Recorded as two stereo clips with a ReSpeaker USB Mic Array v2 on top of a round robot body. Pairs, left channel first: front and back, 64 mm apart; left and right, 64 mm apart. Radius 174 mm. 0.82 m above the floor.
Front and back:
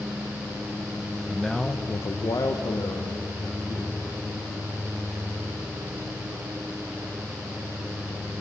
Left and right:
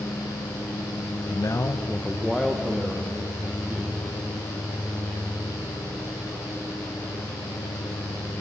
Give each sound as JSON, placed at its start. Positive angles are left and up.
{"t": 1.3, "sound": "a man speaking", "azimuth_deg": 100, "distance_m": 0.9}